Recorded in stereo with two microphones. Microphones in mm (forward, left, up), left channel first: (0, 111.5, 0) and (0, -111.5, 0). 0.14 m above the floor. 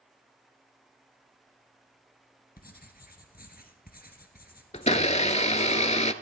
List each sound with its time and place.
2.6 s writing: 45° left (ahead or behind), 1.7 m
4.7 s a blender: 35° left (ahead or behind), 0.6 m